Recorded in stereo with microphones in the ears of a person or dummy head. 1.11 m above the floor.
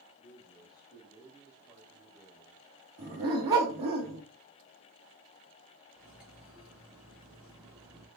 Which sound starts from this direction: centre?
Cutlery clinking, at 6.0 s.